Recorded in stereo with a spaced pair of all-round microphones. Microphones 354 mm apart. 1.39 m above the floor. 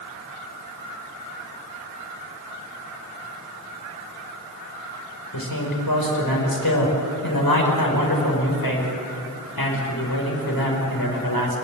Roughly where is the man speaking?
Left.